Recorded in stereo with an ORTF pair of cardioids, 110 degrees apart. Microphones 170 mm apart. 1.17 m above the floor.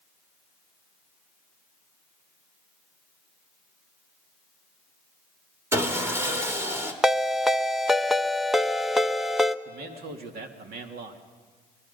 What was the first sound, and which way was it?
Sawing, 15° right.